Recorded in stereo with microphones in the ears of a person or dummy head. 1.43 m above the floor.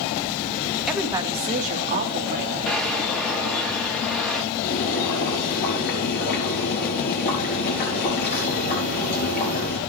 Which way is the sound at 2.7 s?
5° left (ahead or behind).